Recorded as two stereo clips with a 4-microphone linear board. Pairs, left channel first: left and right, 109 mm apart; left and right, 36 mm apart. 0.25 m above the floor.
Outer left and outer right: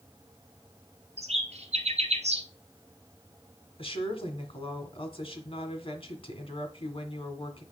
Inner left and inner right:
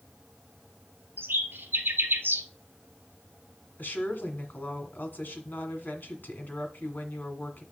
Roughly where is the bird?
Right.